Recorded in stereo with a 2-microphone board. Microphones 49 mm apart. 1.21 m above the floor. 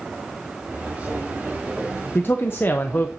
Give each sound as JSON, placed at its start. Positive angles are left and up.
{"t": 0.7, "sound": "footsteps", "side_deg": -30, "distance_m": 5.5}
{"t": 2.1, "sound": "a man speaking", "side_deg": 45, "distance_m": 0.8}